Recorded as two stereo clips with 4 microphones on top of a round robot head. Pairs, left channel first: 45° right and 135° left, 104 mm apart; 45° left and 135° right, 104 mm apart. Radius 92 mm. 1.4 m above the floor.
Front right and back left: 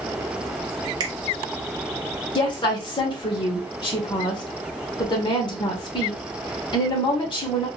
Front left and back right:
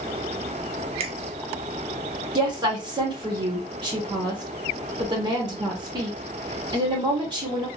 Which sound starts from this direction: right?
A woman speaking, at 2.4 s.